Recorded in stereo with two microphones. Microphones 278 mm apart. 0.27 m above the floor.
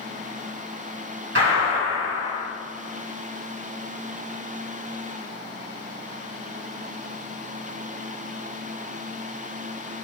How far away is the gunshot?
About 1.9 m.